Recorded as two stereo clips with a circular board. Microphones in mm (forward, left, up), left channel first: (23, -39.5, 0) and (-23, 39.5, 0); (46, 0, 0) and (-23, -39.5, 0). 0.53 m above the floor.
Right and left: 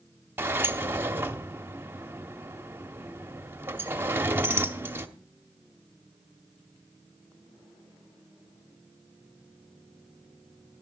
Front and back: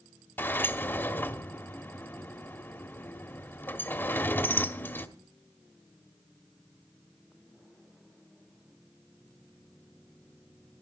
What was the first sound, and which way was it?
A sliding door, 70° left.